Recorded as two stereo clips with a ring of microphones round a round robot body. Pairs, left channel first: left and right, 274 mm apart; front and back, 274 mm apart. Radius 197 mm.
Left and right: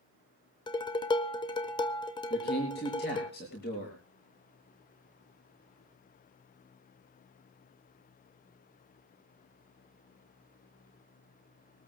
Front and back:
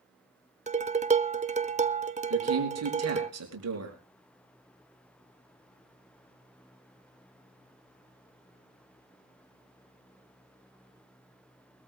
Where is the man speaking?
155° left, 5.5 m.